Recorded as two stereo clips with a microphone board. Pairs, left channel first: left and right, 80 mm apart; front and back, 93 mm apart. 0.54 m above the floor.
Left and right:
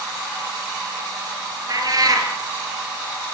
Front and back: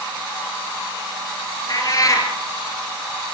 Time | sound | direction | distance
1.7 | a cat meowing | 50° right | 4.5 m